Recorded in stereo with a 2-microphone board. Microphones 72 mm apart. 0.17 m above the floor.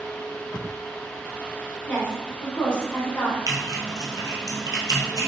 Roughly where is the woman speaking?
Centre.